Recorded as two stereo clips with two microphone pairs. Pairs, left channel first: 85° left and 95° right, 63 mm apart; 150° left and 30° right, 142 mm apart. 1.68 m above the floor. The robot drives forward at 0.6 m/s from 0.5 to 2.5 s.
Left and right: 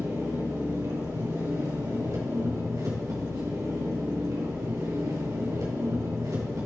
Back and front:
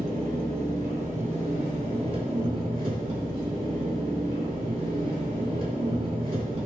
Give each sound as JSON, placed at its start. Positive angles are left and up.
{"t": 0.0, "sound": "an engine running", "azimuth_deg": -60, "distance_m": 3.0}